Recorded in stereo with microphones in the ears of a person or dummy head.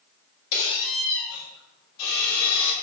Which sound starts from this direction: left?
A squeak, at 0.5 s.